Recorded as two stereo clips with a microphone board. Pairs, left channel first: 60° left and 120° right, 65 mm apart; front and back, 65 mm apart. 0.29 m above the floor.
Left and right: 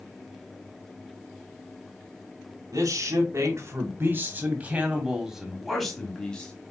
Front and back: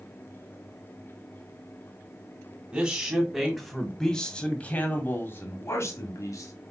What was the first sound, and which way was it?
A man speaking, 105° right.